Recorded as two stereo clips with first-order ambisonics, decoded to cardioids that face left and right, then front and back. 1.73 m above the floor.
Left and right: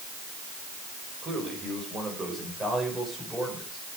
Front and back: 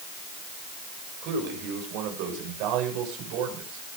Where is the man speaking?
155° right, 7 m; by 4.0 s 175° left, 6.5 m.